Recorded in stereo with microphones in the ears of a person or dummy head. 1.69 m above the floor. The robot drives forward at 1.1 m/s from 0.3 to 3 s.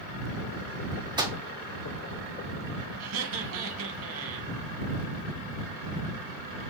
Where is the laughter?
85° right, 2.5 m.